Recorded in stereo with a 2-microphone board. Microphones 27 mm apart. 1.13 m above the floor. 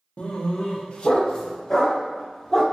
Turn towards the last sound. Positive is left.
turn(degrees=15)  # may be behind; listen again after turning